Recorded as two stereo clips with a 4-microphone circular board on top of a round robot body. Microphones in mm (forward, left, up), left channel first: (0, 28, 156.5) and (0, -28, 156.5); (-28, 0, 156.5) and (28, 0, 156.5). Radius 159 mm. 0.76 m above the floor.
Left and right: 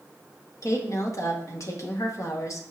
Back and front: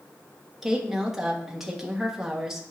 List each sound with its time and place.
0.6 s a woman speaking: 80° left, 1.8 m